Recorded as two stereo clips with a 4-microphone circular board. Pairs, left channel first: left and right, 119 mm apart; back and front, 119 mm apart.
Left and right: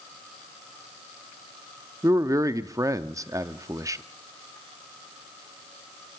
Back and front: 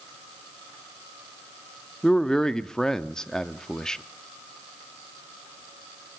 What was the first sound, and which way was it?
A man speaking, 100° right.